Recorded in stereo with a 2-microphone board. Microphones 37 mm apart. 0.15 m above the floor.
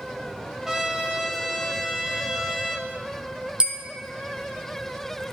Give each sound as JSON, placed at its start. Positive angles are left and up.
{"t": 0.7, "sound": "a trumpet", "side_deg": -15, "distance_m": 1.8}
{"t": 3.6, "sound": "a bell", "side_deg": -25, "distance_m": 1.2}